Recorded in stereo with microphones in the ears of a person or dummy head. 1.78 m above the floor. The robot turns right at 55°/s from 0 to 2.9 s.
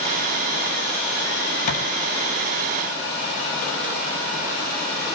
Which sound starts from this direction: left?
A thud, at 1.7 s.